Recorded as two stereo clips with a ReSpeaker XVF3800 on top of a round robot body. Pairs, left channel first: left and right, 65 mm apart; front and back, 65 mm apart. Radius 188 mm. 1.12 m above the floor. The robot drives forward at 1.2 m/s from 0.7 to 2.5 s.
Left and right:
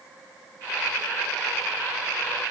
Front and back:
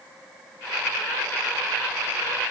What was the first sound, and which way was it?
Only background noise.